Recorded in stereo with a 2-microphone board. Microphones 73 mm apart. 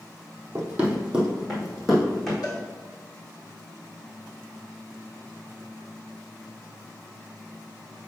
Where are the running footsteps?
25° right (ahead or behind), 1.7 m; by 2.3 s centre (ahead or behind), 3 m.